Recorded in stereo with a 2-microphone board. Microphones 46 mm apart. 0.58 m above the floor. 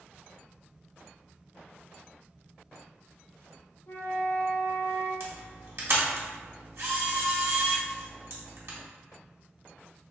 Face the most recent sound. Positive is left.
turn(degrees=-60)  # may be behind; listen again after turning